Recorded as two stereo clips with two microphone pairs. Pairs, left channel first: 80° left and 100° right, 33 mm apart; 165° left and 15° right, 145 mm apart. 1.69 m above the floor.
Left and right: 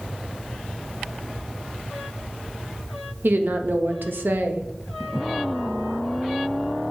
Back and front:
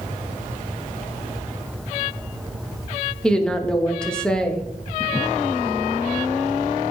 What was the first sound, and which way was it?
A woman speaking, 110° right.